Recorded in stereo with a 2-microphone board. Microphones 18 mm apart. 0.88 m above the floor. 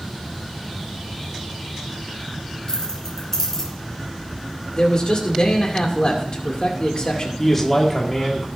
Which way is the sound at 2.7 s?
30° left (ahead or behind).